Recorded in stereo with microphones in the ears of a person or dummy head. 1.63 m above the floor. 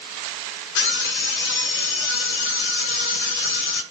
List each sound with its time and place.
0.8 s a scream: 70° left (ahead or behind), 2 m